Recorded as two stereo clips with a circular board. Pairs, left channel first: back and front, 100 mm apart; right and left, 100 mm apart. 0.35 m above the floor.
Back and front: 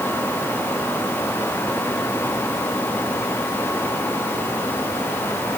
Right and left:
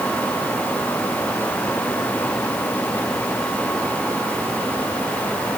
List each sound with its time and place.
Only background noise.